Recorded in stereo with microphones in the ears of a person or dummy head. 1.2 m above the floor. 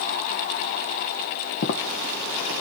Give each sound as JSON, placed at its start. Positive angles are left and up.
{"t": 1.6, "sound": "footsteps", "side_deg": 55, "distance_m": 2.5}